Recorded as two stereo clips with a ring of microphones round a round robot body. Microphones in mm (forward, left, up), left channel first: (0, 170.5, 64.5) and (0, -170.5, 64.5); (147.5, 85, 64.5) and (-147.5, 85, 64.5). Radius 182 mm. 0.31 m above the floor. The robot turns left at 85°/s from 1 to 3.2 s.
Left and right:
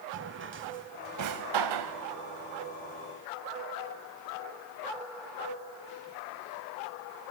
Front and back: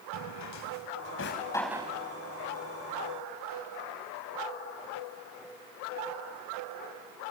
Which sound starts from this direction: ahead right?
A drawer, at 0.1 s.